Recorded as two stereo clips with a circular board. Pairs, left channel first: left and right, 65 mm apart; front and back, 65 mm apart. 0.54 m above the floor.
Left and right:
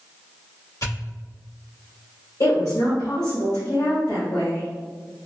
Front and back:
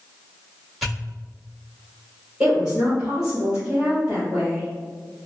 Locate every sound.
0.8 s a pop: 90° left, 1.8 m
2.4 s a woman speaking: 105° left, 1.7 m